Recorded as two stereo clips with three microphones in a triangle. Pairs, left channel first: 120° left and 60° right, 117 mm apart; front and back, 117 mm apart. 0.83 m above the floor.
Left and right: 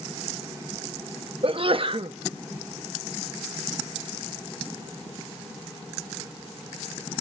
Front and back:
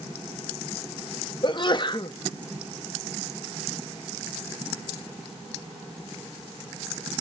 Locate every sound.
1.4 s a sneeze: 35° right, 0.8 m